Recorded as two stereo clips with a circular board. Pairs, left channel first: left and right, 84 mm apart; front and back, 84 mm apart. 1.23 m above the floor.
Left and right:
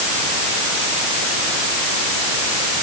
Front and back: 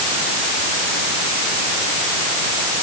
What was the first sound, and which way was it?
Only background noise.